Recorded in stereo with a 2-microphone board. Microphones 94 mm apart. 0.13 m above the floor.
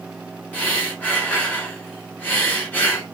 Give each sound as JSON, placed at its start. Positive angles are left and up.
{"t": 0.5, "sound": "breathing", "side_deg": 15, "distance_m": 1.4}